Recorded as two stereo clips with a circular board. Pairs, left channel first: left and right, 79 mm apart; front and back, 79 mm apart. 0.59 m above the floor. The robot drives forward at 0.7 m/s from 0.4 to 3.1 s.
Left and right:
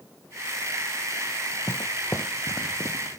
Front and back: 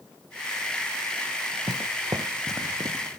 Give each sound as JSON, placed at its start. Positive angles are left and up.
{"t": 1.7, "sound": "footsteps", "azimuth_deg": 150}